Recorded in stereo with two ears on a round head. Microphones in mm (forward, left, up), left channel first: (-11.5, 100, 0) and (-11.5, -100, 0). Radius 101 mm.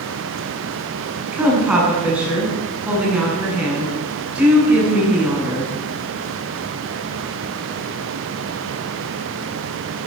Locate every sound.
1.3 s a woman speaking: 5° right (ahead or behind), 8.5 m